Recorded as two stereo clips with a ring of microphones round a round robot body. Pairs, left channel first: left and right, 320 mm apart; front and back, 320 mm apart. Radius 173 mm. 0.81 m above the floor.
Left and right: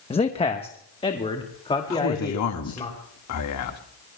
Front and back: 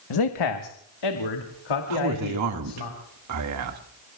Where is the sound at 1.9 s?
135° left, 1.6 m.